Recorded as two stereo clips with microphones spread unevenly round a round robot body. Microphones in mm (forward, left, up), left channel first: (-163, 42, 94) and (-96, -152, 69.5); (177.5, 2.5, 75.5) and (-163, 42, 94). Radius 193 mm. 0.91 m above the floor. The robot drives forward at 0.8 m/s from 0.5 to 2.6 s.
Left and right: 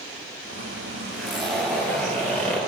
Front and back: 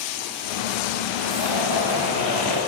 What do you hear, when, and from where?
1.1 s a zipper: 165° right, 2.5 m; by 2.6 s 170° right, 3.5 m